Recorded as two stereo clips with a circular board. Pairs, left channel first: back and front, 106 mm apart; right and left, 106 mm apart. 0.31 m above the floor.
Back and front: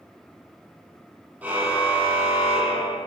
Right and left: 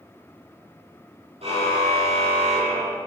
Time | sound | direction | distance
1.4 | a car horn | 75° left | 6.5 m